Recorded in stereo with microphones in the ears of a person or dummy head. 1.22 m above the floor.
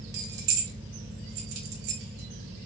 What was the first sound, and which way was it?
Keys jangling, 65° right (ahead or behind).